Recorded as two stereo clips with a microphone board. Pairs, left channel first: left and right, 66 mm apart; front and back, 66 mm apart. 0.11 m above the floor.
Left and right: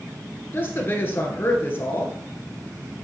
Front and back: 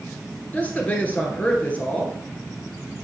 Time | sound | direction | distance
0.5 | a woman speaking | 55° left | 1.6 m